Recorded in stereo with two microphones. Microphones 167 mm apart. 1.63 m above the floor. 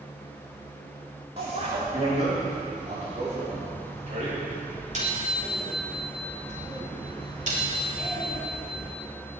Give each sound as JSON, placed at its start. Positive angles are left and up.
{"t": 1.4, "sound": "a bicycle bell", "side_deg": -40, "distance_m": 5.0}